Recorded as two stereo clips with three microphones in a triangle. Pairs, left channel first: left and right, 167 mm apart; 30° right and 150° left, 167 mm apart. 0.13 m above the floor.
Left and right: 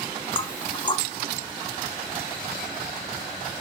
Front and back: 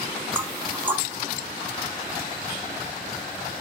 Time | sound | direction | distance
0.3 | knocking | 85° left | 0.8 m